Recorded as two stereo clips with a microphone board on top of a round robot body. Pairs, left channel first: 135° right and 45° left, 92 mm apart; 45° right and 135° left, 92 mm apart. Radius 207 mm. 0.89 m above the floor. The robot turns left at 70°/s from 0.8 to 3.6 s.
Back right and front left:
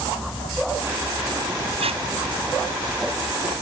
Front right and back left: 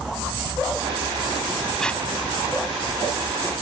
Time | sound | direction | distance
1.8 | tape being pulled | 45° left | ?